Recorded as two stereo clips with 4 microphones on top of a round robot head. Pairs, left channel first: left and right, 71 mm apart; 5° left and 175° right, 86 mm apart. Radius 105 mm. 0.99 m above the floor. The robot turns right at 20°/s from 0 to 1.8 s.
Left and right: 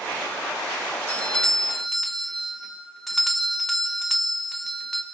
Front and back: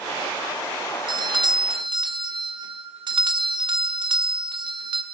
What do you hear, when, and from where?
1.1 s a doorbell: 160° left, 1.3 m; by 5.0 s 175° left, 1.3 m